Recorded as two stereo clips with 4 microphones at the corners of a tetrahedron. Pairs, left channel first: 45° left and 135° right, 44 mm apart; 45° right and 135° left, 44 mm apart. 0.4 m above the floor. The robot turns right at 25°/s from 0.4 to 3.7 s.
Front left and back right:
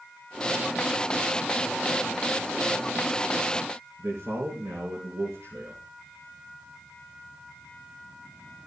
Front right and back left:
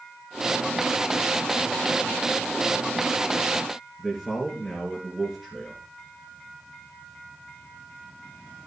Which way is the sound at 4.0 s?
135° right.